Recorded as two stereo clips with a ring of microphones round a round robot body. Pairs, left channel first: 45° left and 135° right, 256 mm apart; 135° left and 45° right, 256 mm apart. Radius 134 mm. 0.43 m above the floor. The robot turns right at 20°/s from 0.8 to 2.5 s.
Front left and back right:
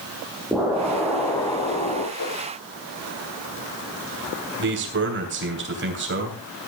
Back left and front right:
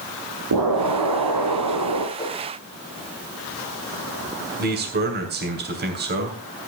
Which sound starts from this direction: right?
A man speaking, at 4.6 s.